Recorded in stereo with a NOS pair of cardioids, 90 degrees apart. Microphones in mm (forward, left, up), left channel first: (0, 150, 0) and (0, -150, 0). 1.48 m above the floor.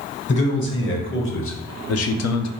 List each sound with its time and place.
0.3 s a man speaking: 40° left, 1.5 m; by 2.5 s 70° left, 0.6 m